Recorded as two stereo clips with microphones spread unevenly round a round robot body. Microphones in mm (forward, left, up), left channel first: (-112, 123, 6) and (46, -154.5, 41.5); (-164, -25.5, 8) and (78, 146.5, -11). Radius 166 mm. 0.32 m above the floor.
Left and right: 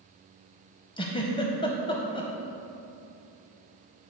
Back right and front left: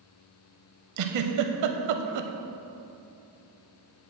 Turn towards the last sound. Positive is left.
turn(degrees=45)